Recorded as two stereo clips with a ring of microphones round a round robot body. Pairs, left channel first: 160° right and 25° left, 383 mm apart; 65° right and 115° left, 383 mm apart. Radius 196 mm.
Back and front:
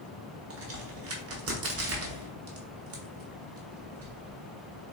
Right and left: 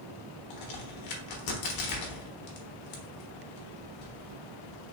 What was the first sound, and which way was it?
A crack, 30° right.